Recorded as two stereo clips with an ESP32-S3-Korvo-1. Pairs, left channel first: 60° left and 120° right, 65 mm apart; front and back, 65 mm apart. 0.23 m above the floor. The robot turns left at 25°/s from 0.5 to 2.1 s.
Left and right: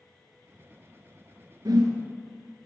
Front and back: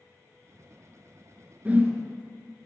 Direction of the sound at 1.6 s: 115° right.